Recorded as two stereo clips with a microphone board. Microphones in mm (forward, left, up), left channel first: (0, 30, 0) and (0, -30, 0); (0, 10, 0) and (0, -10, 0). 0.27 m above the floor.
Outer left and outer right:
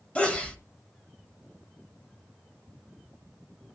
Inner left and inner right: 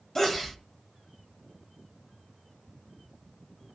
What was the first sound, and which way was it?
A sneeze, 20° left (ahead or behind).